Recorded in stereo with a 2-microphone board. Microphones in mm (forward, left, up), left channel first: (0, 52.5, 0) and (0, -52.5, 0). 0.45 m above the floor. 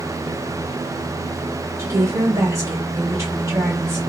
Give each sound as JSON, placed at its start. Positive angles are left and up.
{"t": 1.8, "sound": "a woman speaking", "side_deg": -30, "distance_m": 1.5}